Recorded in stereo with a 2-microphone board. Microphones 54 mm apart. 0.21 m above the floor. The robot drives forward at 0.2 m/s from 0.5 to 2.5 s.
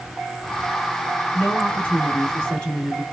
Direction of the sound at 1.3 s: 20° left (ahead or behind).